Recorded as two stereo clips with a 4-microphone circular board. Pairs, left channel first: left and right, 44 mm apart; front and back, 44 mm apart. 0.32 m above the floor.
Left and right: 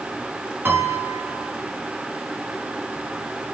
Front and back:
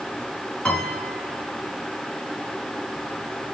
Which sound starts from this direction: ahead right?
A piano, at 0.7 s.